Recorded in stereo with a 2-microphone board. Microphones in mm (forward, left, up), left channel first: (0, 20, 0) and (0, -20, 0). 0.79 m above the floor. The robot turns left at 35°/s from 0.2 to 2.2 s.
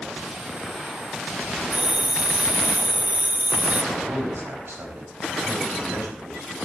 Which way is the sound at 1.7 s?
30° right (ahead or behind).